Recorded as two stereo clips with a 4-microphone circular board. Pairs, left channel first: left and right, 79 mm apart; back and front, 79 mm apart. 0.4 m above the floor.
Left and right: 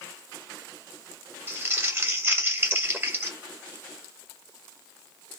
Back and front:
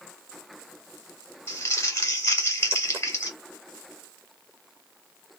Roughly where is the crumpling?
Behind right.